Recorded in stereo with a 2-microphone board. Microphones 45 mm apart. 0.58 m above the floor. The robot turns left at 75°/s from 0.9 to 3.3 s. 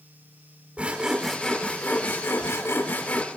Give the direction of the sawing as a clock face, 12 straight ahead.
5 o'clock.